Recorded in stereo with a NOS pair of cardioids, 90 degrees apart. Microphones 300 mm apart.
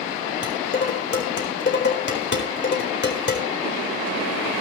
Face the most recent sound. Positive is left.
turn(degrees=35)